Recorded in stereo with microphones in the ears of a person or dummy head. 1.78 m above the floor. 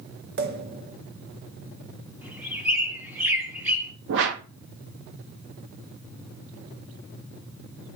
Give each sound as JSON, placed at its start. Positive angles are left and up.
{"t": 0.4, "sound": "a pop", "side_deg": -55, "distance_m": 0.8}
{"t": 2.2, "sound": "a bird", "side_deg": -10, "distance_m": 1.2}
{"t": 4.1, "sound": "a whoosh", "side_deg": -70, "distance_m": 1.0}